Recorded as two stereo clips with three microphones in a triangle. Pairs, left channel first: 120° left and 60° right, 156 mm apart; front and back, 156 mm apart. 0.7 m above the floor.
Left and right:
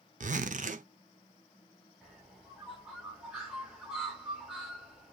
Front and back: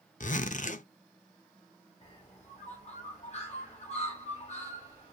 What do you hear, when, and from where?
0.2 s a zipper: 30° right, 0.5 m
2.0 s a bird: 25° left, 1.5 m